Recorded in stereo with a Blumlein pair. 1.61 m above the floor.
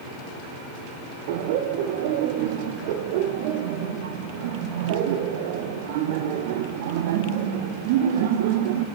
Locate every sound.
1.3 s laughter: 50° right, 1.0 m